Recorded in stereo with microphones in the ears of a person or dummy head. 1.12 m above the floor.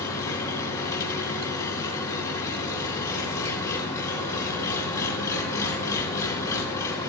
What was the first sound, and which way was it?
An engine running, 15° left (ahead or behind).